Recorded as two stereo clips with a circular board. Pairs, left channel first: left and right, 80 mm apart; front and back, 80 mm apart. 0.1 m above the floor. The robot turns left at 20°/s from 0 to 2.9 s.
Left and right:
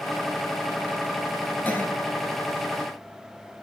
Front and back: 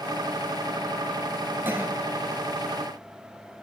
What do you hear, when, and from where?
1.6 s a cough: 140° left, 1.6 m; by 1.9 s 135° left, 1.6 m